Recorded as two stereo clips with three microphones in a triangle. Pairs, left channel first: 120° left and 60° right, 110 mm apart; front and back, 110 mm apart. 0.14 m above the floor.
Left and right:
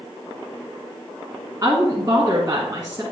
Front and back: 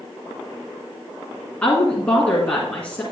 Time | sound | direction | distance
1.6 | a woman speaking | 65° right | 1.6 m